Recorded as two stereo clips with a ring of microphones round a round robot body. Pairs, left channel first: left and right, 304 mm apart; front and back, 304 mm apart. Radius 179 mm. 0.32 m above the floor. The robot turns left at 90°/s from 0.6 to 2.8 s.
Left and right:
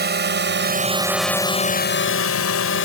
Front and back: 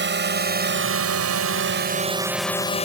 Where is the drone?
135° right; by 2.9 s 65° left.